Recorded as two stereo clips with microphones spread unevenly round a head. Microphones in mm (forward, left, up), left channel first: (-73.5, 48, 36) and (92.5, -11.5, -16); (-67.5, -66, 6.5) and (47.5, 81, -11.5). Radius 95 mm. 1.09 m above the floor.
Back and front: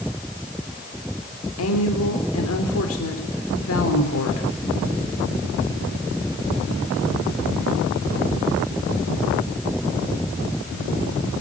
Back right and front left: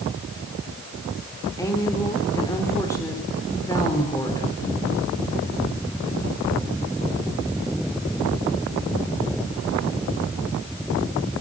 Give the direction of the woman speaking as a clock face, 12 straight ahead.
7 o'clock.